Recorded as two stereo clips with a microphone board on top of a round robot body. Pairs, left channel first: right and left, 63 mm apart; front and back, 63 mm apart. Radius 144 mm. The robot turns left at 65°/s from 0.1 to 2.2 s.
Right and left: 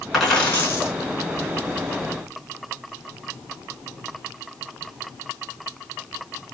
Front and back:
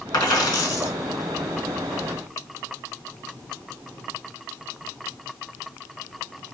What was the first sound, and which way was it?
A dropped coin, straight ahead.